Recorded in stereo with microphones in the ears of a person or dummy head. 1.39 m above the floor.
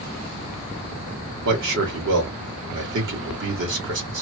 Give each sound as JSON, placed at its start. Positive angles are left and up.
{"t": 1.4, "sound": "a man speaking", "side_deg": -60, "distance_m": 1.7}